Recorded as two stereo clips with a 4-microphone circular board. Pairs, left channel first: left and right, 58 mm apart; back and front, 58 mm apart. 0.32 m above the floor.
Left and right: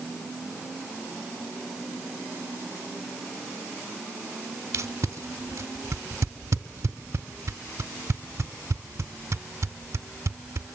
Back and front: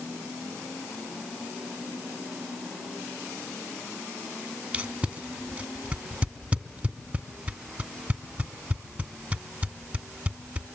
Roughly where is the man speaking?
I don't hear a man speaking.